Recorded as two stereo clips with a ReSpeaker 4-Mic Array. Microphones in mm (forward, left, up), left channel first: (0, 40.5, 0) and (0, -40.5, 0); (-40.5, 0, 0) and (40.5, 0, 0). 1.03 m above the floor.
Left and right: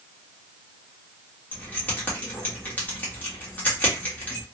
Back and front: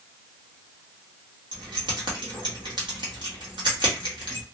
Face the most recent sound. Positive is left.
turn(degrees=20)